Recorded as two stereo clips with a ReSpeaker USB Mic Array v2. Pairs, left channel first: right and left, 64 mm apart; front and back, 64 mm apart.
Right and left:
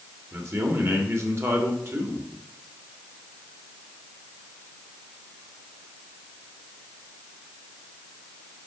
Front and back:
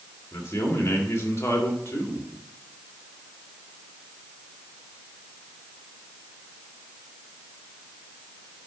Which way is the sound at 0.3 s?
45° left.